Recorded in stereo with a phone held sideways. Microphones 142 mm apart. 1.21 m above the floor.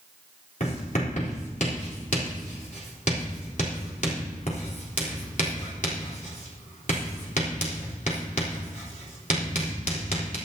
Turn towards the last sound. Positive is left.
turn(degrees=60)  # may be behind; listen again after turning